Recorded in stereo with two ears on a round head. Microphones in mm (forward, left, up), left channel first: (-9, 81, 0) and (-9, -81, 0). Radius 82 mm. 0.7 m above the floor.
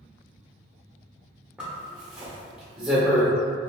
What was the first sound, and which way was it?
A zipper, 5° right (ahead or behind).